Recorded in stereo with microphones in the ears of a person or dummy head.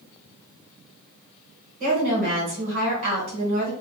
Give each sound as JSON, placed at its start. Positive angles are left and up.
{"t": 1.8, "sound": "a woman speaking", "side_deg": -40, "distance_m": 1.6}